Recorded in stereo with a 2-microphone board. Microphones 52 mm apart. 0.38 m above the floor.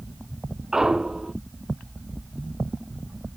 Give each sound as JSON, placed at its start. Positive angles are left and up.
{"t": 0.7, "sound": "a clunk", "side_deg": -10}